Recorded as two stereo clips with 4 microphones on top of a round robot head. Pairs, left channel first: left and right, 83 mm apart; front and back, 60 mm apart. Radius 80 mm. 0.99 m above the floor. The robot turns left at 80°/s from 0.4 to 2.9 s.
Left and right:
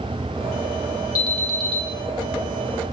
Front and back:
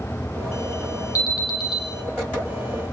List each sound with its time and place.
1.1 s an alarm: 35° left, 4.5 m; by 1.8 s 20° right, 4.5 m